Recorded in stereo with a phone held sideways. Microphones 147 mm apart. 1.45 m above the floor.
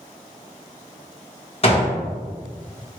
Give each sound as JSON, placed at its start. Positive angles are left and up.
{"t": 1.6, "sound": "a gunshot", "side_deg": 40, "distance_m": 1.5}